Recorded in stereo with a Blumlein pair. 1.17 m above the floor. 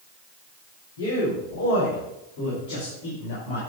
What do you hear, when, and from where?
1.0 s a man speaking: 65° left, 3.5 m; by 3.6 s 50° left, 4.5 m